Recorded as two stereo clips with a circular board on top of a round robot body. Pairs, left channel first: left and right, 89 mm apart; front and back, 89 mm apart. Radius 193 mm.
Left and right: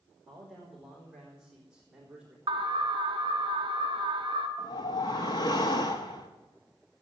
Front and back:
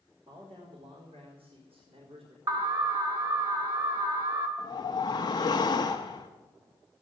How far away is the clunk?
I don't hear a clunk.